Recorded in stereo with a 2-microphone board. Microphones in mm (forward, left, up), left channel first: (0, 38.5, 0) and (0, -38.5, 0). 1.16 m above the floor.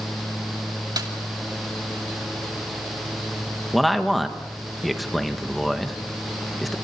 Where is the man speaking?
Centre (ahead or behind), 1.4 m.